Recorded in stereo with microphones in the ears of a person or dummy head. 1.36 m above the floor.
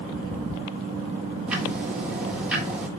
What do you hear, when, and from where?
1.5 s ticking: 10° right (ahead or behind), 1.4 m